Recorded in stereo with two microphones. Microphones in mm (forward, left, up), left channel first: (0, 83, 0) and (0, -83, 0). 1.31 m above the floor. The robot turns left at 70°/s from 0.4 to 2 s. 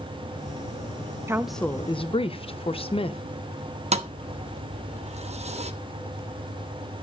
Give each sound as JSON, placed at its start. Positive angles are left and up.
{"t": 1.3, "sound": "a woman speaking", "azimuth_deg": -165, "distance_m": 0.8}
{"t": 3.9, "sound": "a thud", "side_deg": -40, "distance_m": 0.9}